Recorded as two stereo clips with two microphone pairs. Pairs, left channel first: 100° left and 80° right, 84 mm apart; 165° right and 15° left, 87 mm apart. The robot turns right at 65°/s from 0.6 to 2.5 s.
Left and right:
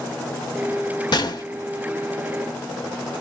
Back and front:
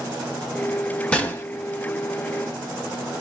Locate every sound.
1.1 s a gunshot: 120° left, 1.1 m; by 1.4 s 140° left, 1.1 m